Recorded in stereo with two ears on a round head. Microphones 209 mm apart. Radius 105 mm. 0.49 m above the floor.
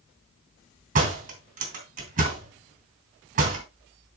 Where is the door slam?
35° right (ahead or behind), 3 m.